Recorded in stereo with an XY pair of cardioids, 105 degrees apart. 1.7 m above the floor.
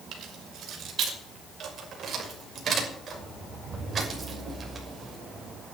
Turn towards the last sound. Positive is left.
turn(degrees=-30)